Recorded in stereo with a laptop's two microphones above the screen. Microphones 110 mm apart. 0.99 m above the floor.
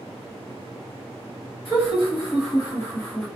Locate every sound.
1.6 s laughter: 55° left (ahead or behind), 1.4 m; by 3.3 s 5° left (ahead or behind), 0.7 m